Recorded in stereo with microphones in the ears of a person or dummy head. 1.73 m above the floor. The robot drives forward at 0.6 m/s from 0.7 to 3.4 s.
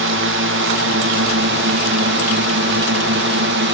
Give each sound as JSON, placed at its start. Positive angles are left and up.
{"t": 0.0, "sound": "a drone", "side_deg": -55}